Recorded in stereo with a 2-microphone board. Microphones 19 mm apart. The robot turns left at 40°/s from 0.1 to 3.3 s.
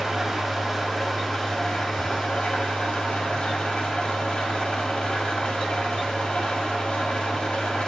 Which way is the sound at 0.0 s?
140° right.